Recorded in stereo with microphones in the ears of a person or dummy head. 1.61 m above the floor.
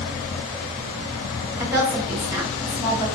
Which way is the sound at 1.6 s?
15° right (ahead or behind).